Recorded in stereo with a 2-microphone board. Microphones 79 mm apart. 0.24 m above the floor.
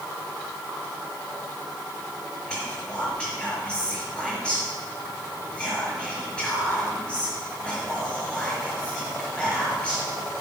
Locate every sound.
2.5 s whispering: 15° left (ahead or behind), 4.5 m